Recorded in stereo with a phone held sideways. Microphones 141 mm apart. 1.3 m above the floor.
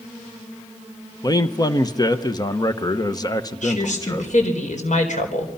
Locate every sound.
1.2 s a man speaking: 30° left (ahead or behind), 1.1 m
3.6 s a woman speaking: 65° left (ahead or behind), 4 m